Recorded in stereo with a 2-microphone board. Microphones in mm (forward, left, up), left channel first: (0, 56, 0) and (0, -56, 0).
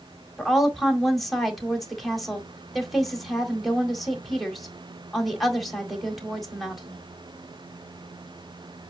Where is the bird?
No bird in this recording.